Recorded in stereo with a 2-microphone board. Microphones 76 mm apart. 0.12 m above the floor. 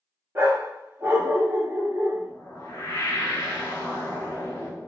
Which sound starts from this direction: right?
A dog barking, at 0.3 s.